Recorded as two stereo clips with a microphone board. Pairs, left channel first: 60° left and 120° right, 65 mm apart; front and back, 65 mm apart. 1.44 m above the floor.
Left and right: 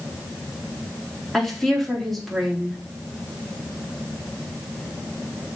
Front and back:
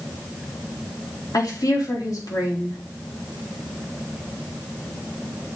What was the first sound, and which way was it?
A woman speaking, 25° right.